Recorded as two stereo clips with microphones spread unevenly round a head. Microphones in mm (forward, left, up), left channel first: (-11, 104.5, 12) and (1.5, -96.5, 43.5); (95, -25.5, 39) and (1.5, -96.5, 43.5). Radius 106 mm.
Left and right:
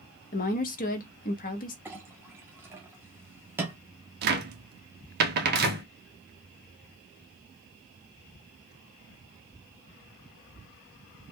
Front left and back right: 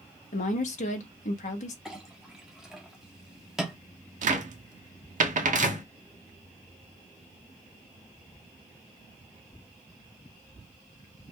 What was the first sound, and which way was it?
A woman speaking, 40° left.